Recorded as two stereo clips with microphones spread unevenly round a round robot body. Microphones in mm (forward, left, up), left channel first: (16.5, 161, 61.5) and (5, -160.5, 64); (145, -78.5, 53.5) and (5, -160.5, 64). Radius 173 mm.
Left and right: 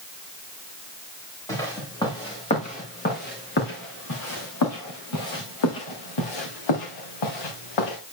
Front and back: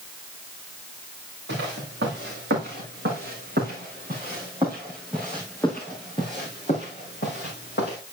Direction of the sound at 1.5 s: 170° left.